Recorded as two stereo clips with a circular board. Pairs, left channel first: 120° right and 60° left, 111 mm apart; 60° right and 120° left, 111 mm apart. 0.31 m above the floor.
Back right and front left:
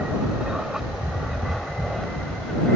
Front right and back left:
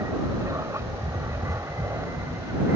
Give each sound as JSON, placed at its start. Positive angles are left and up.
{"t": 0.0, "sound": "an aircraft", "azimuth_deg": 135}